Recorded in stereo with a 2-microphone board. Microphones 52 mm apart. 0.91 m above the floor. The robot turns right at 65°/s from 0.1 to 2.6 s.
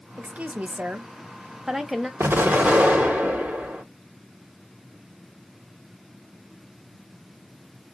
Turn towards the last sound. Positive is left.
turn(degrees=-25)  # may be behind; listen again after turning